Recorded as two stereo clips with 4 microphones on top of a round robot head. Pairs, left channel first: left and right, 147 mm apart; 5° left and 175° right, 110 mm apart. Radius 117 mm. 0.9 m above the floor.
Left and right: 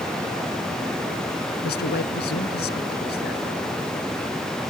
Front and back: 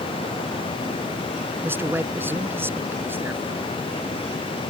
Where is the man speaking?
115° left.